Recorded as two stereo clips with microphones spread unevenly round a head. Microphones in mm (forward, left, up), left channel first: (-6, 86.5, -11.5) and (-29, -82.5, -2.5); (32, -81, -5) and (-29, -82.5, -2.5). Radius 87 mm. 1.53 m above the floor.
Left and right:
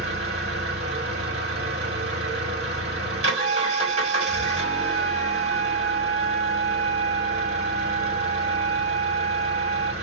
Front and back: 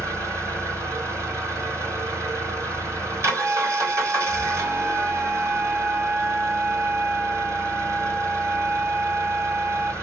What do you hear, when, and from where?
0.0 s an engine running: 150° right, 3 m
3.4 s a flute: 140° right, 0.5 m